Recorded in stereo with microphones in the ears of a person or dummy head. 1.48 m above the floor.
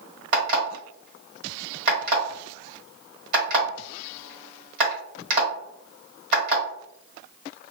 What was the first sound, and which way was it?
An alarm clock, 55° right (ahead or behind).